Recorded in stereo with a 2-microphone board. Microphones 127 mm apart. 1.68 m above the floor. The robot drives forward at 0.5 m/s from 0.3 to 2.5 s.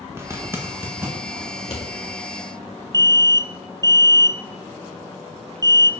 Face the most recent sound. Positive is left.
turn(degrees=-30)  # may be behind; listen again after turning